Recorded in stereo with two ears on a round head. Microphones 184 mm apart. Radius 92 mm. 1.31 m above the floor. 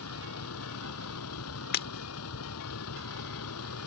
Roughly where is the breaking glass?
Left.